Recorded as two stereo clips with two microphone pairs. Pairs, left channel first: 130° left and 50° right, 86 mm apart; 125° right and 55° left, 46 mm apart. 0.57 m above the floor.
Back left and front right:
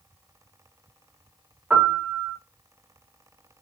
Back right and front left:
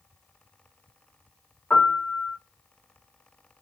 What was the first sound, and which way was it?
A piano, 130° right.